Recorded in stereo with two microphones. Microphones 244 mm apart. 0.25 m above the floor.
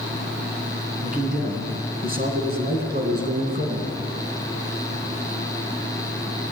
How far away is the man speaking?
About 3 m.